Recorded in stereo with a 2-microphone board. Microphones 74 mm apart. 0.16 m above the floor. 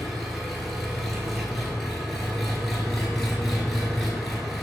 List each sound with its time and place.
0.0 s an engine running: 5° left (ahead or behind), 0.8 m